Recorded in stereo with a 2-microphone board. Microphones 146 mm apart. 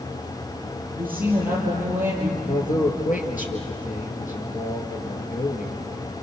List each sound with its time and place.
0.9 s a woman speaking: 10° right (ahead or behind), 5.5 m; by 2.3 s 15° right (ahead or behind), 7 m
2.4 s a man speaking: 65° left (ahead or behind), 4.5 m